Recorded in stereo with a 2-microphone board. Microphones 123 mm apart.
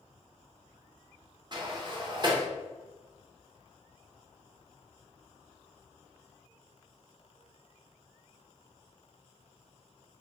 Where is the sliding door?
35° right (ahead or behind), 0.6 m.